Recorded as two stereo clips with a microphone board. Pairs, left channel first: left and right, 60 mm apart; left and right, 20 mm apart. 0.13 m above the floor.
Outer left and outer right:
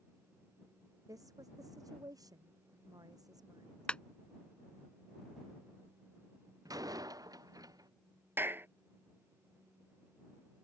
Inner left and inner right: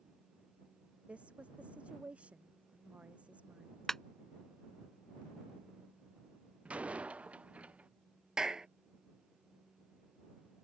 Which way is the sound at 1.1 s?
70° right (ahead or behind).